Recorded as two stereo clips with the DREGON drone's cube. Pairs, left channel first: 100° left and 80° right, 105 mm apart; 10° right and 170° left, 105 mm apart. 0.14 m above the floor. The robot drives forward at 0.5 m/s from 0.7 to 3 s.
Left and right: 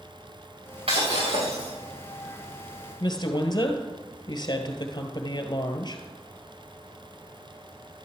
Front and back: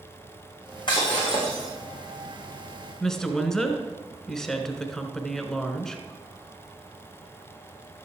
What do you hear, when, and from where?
0.9 s breaking glass: 55° right, 6.5 m; by 1.7 s 60° right, 6 m
3.0 s a woman speaking: 70° left, 1.6 m